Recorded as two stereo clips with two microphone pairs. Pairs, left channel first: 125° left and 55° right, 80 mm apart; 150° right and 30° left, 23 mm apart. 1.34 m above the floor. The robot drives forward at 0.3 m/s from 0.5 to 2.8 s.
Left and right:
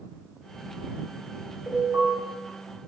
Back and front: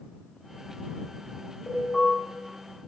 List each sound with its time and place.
1.7 s an alarm: 135° right, 3 m; by 2.1 s 140° right, 3 m